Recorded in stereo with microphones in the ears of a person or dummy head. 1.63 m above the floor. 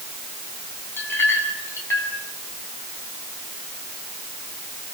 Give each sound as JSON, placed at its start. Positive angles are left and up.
{"t": 1.0, "sound": "a clink", "side_deg": 10, "distance_m": 7.5}